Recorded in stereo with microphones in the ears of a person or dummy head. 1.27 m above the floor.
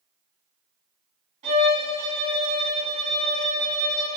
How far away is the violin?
About 2.5 m.